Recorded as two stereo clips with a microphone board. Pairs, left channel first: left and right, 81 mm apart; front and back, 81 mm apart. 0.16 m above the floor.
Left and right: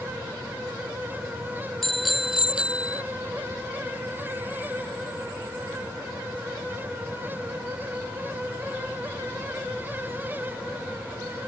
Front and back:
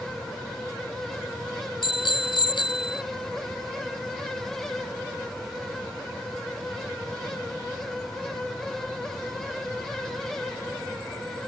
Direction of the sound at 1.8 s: Straight ahead.